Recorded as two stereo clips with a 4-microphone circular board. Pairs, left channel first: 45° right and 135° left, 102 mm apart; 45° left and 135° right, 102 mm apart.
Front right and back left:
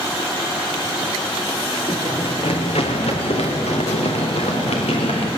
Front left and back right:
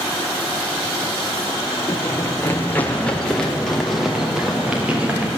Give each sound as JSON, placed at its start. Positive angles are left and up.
{"t": 1.9, "sound": "running footsteps", "azimuth_deg": -10, "distance_m": 4.0}